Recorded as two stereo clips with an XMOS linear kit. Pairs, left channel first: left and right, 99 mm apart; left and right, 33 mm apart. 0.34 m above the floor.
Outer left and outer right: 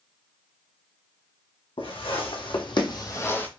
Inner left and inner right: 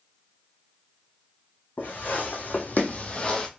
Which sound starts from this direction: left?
Footsteps, at 1.8 s.